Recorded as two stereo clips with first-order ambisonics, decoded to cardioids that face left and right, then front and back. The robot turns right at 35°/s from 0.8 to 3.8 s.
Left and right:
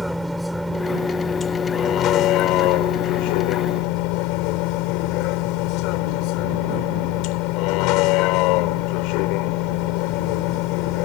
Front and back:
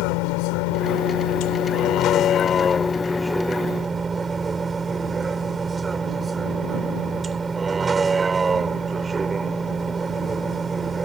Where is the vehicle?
Straight ahead; by 11.1 s 105° left.